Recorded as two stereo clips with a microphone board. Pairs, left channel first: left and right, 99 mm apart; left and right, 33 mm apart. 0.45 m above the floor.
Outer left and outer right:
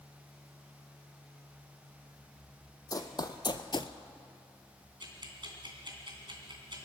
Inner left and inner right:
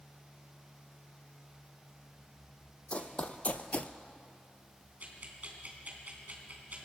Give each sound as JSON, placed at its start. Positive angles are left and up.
{"t": 2.9, "sound": "running footsteps", "side_deg": 40, "distance_m": 1.3}
{"t": 5.0, "sound": "ticking", "side_deg": -50, "distance_m": 2.5}